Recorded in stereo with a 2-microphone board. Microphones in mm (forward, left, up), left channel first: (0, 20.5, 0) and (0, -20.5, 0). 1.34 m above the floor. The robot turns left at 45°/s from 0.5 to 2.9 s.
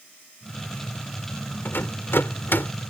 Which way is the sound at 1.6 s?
65° left (ahead or behind).